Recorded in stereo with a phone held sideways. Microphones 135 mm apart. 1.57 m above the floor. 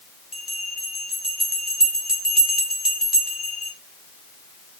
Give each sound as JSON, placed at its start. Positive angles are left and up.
{"t": 0.3, "sound": "a bell", "side_deg": -5, "distance_m": 3.0}